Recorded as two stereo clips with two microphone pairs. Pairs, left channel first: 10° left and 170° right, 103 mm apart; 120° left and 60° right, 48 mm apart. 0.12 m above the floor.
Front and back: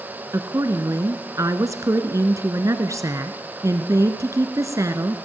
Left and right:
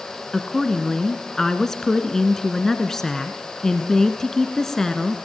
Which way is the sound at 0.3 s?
170° right.